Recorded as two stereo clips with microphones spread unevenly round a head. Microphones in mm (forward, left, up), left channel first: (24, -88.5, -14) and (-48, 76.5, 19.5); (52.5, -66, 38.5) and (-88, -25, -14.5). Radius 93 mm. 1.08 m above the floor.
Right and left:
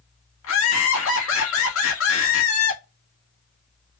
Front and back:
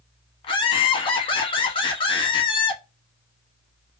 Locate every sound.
0.4 s laughter: 75° right, 1.4 m